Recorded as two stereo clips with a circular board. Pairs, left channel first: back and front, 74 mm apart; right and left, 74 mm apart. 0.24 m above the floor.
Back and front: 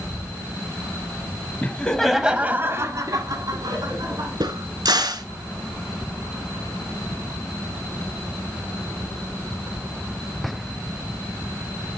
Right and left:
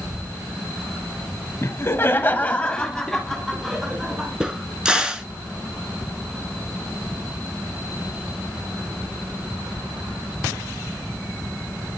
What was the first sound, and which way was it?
Laughter, 120° right.